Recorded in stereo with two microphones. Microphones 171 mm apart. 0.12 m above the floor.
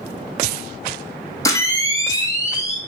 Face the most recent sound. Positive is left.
turn(degrees=20)  # may be behind; listen again after turning